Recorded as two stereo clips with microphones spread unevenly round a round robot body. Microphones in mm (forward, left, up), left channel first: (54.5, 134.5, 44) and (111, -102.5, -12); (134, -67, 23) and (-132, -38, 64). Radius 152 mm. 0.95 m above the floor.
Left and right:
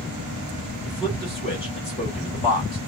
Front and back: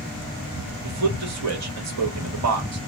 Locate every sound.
0.8 s a man speaking: 175° left, 1.3 m